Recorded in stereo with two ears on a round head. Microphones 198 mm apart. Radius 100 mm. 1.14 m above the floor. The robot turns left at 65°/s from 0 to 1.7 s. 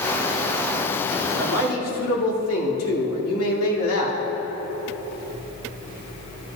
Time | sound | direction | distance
1.3 | a man speaking | 85° left | 2.5 m